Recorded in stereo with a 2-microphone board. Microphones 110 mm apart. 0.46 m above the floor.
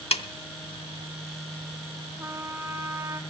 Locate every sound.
0.1 s a snare drum: 65° left (ahead or behind), 0.7 m
2.2 s a trumpet: 25° right (ahead or behind), 1.0 m